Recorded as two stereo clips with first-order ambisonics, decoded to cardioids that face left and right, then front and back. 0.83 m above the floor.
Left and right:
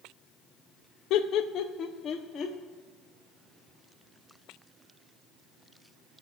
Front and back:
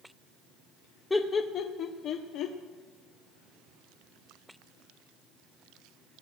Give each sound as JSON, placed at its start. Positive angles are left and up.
{"t": 1.1, "sound": "laughter", "azimuth_deg": 80, "distance_m": 0.6}